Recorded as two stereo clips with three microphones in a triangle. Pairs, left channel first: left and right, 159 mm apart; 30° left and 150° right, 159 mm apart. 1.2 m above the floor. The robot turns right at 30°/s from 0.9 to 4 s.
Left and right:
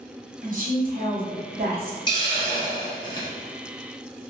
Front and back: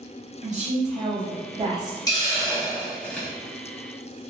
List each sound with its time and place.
0.4 s a woman speaking: 115° right, 0.8 m; by 2.0 s 80° right, 0.8 m
2.1 s a hiss: 65° left, 0.7 m; by 3.3 s 105° left, 0.7 m